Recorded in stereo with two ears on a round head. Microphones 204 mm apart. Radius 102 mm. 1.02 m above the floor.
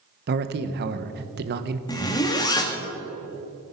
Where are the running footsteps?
No running footsteps in this recording.